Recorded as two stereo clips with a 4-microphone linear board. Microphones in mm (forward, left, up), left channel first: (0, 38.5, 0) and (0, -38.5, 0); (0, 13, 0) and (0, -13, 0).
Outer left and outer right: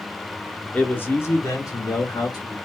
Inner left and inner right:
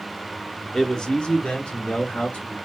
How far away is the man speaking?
About 0.8 m.